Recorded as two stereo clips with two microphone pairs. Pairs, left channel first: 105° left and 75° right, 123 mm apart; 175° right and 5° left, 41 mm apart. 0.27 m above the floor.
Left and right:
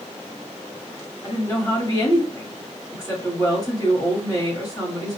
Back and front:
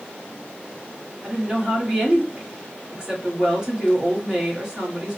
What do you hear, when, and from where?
1.2 s a woman speaking: 65° left, 1.4 m